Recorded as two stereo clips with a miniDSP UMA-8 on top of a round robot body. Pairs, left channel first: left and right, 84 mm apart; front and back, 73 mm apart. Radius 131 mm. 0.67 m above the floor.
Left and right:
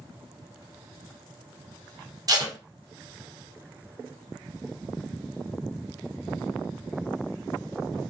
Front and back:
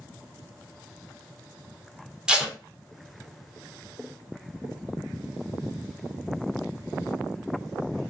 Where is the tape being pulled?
105° right, 1.1 m.